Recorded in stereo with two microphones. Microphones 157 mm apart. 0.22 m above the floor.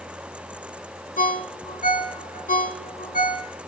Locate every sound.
1.2 s a ringtone: 60° left (ahead or behind), 1.1 m